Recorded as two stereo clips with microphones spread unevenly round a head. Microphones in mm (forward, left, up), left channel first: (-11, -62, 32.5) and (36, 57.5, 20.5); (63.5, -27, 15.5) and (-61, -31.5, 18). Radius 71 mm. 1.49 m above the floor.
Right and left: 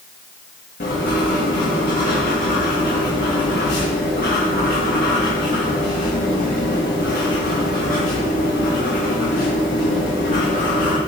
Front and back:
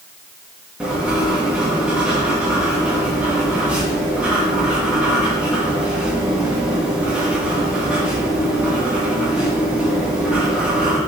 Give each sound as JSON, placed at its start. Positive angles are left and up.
{"t": 0.8, "sound": "writing", "azimuth_deg": -95, "distance_m": 1.8}